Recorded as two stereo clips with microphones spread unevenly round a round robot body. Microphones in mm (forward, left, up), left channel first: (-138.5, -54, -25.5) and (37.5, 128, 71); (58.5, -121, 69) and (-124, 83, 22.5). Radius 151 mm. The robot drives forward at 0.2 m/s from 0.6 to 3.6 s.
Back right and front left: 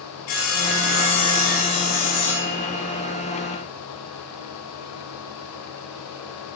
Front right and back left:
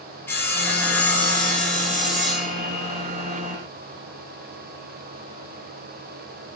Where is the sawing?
130° right, 1.9 m; by 3.0 s 140° right, 2 m.